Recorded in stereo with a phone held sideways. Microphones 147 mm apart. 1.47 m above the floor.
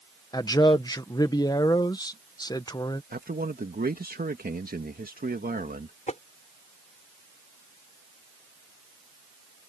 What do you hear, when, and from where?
0.3 s a man speaking: 25° left (ahead or behind)
3.1 s a man speaking: 80° right
6.1 s tapping: 55° left (ahead or behind)